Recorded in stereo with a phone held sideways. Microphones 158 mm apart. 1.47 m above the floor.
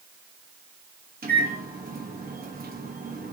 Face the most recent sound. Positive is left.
turn(degrees=-65)  # may be behind; listen again after turning